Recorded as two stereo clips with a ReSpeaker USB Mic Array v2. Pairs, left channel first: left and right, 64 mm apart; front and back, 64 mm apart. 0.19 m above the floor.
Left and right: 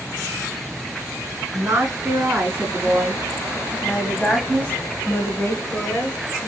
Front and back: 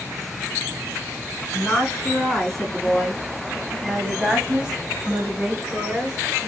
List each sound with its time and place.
1.5 s a woman speaking: 80° right, 1.9 m; by 6.5 s 110° left, 2.0 m